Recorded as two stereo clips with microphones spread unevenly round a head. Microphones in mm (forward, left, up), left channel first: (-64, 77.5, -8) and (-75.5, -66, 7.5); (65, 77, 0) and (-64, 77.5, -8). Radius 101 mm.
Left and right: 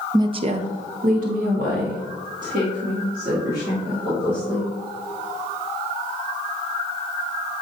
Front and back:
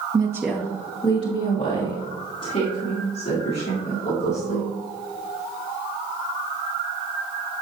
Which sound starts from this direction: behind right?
A woman speaking, at 0.1 s.